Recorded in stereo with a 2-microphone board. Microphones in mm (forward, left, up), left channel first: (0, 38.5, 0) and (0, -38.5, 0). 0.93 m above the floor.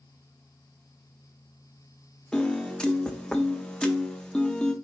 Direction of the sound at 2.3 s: 10° left (ahead or behind).